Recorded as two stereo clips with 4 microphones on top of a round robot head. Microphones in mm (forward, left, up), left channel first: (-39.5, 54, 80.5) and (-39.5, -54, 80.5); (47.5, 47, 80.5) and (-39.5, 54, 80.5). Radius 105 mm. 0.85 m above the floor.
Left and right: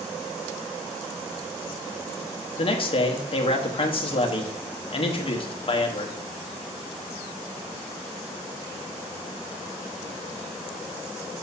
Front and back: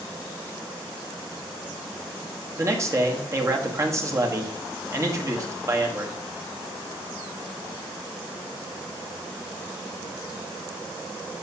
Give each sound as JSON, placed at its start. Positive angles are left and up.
{"t": 2.6, "sound": "a man speaking", "azimuth_deg": 120, "distance_m": 1.3}